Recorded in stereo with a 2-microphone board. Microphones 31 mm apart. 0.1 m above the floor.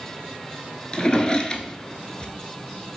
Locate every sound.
0.9 s a drawer: 25° left (ahead or behind), 0.6 m